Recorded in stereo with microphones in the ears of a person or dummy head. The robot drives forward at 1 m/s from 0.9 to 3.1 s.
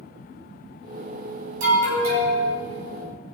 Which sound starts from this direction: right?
An alarm, at 1.6 s.